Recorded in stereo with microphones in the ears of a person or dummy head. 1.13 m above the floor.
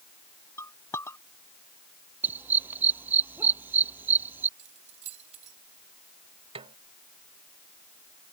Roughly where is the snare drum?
Right.